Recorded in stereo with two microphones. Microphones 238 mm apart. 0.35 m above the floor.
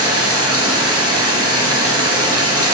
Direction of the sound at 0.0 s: 80° right.